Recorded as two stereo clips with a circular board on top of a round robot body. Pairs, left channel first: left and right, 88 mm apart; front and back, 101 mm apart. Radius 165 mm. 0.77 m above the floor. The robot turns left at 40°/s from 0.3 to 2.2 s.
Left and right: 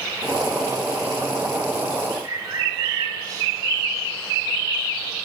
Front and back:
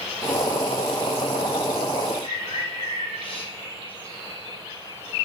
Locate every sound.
2.2 s a bird: 35° right, 4.5 m